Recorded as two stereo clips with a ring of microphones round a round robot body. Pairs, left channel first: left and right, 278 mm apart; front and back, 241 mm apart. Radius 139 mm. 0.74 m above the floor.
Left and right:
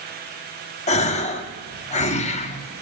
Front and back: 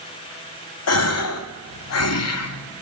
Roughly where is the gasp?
Ahead.